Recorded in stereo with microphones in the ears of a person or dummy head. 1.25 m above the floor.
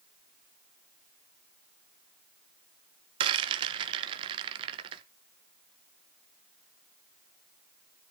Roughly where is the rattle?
Right.